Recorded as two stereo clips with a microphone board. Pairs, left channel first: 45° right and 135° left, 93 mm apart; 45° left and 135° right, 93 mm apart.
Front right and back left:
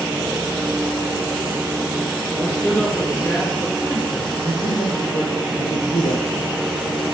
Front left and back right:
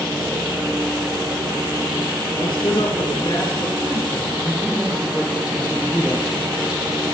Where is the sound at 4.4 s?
40° right, 4 m.